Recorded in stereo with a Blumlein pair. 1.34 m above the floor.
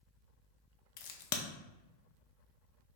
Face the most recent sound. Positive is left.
turn(degrees=50)